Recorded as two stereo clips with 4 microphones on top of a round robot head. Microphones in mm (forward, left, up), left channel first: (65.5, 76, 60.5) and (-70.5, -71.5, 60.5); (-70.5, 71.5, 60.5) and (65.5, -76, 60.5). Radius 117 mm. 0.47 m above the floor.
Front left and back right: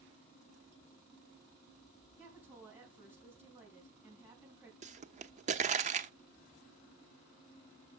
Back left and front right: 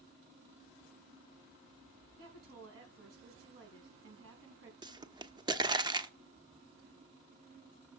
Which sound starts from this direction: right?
A pop, at 4.8 s.